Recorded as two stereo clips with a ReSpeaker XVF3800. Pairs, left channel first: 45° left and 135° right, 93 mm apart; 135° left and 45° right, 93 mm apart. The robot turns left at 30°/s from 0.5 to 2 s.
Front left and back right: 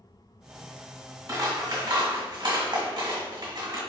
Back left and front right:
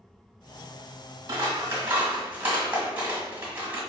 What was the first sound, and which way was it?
Scissors, 90° right.